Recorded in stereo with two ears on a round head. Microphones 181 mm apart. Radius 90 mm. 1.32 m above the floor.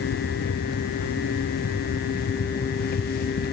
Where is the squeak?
No squeak in this recording.